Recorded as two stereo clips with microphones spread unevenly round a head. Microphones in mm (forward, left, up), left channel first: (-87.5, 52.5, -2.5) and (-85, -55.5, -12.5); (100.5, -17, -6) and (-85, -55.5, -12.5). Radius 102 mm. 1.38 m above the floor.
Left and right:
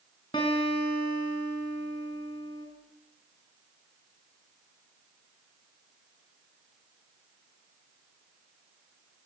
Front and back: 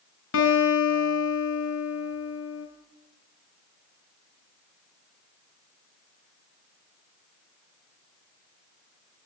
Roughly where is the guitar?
Ahead left.